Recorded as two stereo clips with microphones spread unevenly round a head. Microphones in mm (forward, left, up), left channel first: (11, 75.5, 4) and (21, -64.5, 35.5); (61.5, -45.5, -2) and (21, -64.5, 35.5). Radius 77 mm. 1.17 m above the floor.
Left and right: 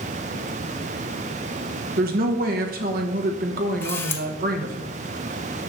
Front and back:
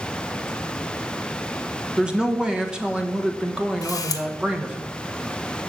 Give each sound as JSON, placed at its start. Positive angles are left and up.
{"t": 2.0, "sound": "a woman speaking", "azimuth_deg": -65, "distance_m": 1.3}
{"t": 3.8, "sound": "a camera shutter", "azimuth_deg": 10, "distance_m": 0.9}